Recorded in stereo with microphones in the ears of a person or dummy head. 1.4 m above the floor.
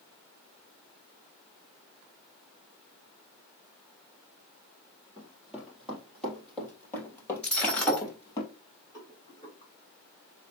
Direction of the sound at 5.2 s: 20° right (ahead or behind).